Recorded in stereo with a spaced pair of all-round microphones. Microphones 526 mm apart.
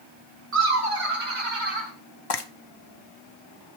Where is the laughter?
80° right, 2 m; by 1.9 s 60° right (ahead or behind), 3 m.